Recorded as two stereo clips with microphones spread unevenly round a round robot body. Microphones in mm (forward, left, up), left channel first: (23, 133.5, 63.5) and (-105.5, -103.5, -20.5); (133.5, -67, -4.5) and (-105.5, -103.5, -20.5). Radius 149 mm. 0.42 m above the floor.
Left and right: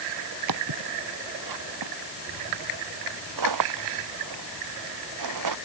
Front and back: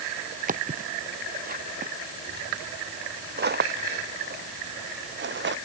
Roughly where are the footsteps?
Behind right.